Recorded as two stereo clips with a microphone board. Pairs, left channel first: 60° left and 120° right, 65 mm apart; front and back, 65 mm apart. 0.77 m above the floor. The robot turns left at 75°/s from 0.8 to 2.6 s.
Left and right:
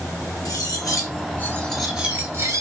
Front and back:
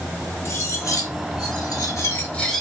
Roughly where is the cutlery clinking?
Ahead left.